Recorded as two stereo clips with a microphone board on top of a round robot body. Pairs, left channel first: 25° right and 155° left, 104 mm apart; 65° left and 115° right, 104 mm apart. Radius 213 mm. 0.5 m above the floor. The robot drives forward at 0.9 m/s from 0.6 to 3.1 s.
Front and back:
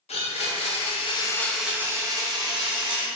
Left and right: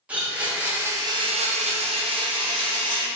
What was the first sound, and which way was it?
A blender, 35° right.